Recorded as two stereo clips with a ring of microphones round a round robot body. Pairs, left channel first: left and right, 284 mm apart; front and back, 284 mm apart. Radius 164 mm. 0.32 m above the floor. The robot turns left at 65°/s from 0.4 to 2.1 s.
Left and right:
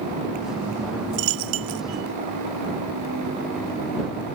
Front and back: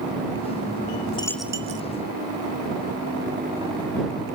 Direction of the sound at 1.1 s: 75° right.